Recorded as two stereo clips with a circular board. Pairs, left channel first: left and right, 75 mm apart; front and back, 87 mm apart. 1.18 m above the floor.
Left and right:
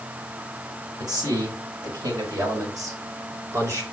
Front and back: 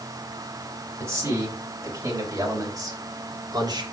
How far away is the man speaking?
About 6 m.